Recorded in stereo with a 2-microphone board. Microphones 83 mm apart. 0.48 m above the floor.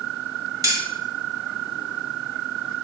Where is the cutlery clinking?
45° right (ahead or behind), 1.6 m.